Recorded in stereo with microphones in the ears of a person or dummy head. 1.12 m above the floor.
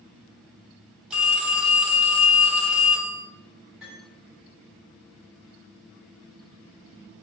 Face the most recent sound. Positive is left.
turn(degrees=-5)  # may be behind; listen again after turning